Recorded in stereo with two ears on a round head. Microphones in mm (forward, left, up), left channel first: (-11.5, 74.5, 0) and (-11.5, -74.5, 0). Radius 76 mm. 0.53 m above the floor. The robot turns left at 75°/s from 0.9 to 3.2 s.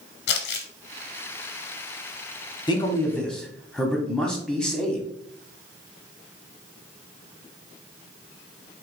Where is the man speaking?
45° left, 0.8 m; by 5.1 s 5° left, 0.8 m.